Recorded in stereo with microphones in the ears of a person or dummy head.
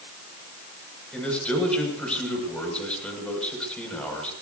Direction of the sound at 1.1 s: 5° left (ahead or behind).